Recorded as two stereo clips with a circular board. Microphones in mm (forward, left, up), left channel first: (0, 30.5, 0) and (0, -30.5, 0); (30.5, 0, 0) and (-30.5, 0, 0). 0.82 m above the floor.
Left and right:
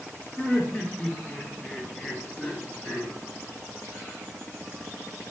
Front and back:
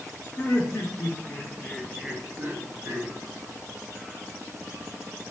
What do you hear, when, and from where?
0.4 s laughter: 20° left, 1.0 m; by 3.1 s 175° right, 0.8 m